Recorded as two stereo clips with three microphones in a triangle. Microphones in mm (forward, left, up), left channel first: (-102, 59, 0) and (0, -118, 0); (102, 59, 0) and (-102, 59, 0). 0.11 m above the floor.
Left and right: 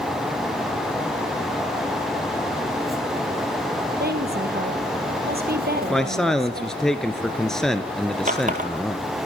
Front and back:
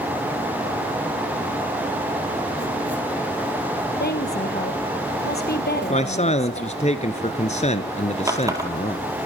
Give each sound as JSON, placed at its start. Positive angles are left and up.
{"t": 4.0, "sound": "a woman speaking", "azimuth_deg": -30, "distance_m": 2.5}
{"t": 5.9, "sound": "a man speaking", "azimuth_deg": 35, "distance_m": 1.5}
{"t": 8.3, "sound": "a running tap", "azimuth_deg": -105, "distance_m": 2.0}